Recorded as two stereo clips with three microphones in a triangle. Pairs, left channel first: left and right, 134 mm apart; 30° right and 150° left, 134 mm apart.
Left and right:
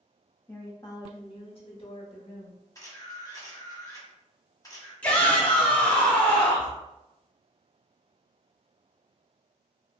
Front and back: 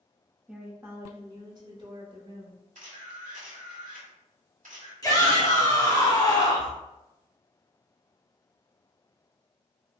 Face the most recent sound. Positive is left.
turn(degrees=15)